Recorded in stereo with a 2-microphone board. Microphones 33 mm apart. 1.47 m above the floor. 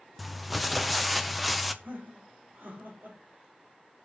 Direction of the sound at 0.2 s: 5° right (ahead or behind).